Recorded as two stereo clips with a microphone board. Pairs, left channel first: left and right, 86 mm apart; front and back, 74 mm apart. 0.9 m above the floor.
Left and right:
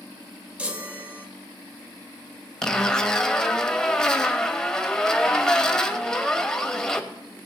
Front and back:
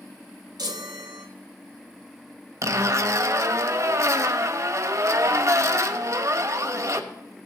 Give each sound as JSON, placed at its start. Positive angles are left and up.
{"t": 0.6, "sound": "a chime", "azimuth_deg": -165, "distance_m": 1.3}
{"t": 2.6, "sound": "a zipper", "azimuth_deg": 170, "distance_m": 0.8}